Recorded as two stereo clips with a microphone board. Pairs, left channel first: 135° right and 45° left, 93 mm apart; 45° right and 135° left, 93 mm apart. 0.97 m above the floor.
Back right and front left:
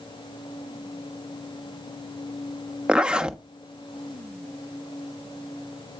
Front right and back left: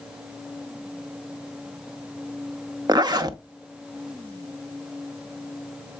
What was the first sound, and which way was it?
A zipper, 120° left.